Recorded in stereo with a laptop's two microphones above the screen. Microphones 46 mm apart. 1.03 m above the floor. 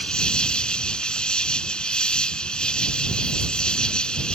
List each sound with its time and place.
0.0 s an insect: 20° left (ahead or behind)